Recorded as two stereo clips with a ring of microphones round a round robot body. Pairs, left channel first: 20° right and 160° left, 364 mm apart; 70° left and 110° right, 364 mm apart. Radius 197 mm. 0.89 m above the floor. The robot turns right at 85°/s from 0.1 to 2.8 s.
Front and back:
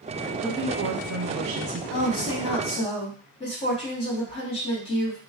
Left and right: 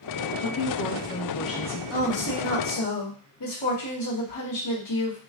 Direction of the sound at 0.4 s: 70° left.